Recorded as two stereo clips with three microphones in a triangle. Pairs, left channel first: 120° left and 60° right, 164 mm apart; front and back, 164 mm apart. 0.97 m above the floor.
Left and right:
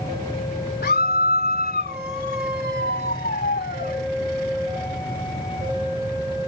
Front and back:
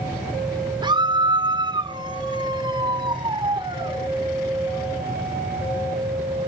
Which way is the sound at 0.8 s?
120° left.